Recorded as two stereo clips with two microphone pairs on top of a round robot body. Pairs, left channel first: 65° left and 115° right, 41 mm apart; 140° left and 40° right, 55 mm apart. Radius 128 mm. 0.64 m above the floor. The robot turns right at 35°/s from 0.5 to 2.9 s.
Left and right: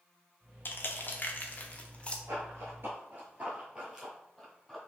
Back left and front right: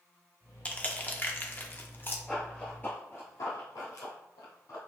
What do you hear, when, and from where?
0.7 s crushing: 90° left, 0.9 m; by 2.2 s 145° left, 0.9 m
2.3 s running footsteps: 130° right, 0.8 m; by 4.8 s 150° left, 1.4 m